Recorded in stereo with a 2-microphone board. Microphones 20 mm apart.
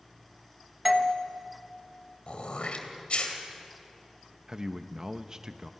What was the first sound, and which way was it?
A doorbell, 10° right (ahead or behind).